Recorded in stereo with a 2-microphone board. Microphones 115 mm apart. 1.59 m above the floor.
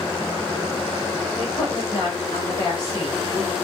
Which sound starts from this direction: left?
A woman speaking, at 1.4 s.